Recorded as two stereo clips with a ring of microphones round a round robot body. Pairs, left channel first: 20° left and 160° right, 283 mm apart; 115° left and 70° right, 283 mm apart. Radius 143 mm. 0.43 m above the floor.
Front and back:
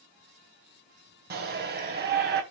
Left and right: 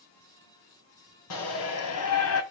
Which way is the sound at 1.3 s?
145° left.